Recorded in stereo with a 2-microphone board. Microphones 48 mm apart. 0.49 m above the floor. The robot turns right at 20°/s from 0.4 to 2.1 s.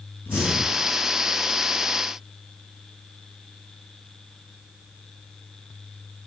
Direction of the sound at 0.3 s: 45° left (ahead or behind).